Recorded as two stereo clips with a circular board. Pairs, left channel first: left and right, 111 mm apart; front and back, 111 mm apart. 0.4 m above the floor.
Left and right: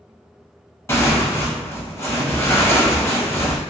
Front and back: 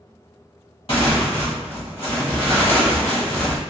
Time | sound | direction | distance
0.9 | tearing paper | 25° left | 1.0 m